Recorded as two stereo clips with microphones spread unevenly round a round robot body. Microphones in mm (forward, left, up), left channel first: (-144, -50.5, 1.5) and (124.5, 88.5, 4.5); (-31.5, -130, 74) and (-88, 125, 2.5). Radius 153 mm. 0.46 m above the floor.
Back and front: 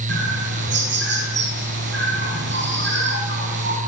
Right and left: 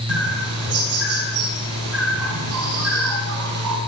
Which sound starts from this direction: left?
A bird, at 0.1 s.